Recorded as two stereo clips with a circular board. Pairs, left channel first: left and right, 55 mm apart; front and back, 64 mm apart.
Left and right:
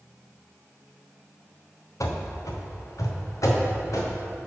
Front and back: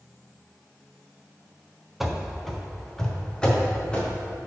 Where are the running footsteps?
95° left, 1.0 m; by 4.1 s 75° left, 2 m.